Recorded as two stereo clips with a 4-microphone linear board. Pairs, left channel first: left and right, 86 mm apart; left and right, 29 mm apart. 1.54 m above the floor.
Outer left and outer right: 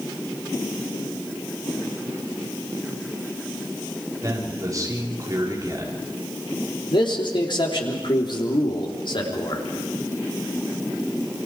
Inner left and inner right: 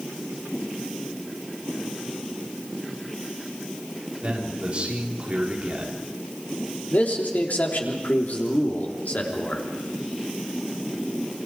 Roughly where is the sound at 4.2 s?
Right.